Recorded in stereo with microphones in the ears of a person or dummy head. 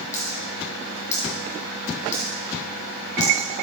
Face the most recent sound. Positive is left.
turn(degrees=15)  # may be behind; listen again after turning